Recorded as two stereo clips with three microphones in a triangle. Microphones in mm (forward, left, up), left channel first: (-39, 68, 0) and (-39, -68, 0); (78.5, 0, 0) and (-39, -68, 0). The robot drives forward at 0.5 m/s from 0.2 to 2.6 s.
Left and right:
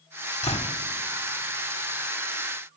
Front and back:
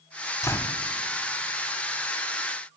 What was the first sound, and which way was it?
A door slam, 90° left.